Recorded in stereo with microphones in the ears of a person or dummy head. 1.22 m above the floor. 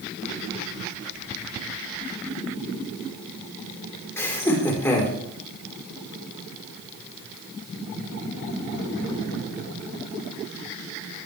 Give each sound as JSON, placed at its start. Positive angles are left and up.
{"t": 4.2, "sound": "laughter", "side_deg": 15, "distance_m": 4.5}